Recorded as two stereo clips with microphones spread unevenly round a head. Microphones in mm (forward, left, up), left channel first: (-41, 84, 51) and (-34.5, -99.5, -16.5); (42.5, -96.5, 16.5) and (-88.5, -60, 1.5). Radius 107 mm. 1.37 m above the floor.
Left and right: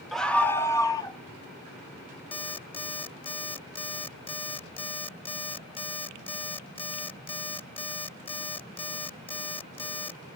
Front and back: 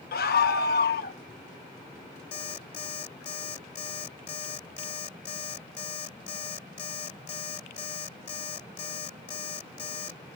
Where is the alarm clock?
35° left.